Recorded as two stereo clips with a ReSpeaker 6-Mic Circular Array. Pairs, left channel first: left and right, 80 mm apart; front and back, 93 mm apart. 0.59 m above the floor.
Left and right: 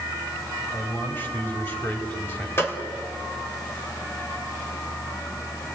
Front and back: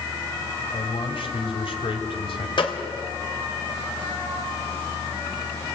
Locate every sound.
0.7 s a man speaking: 25° left, 4 m
2.6 s a gunshot: 30° left, 2.5 m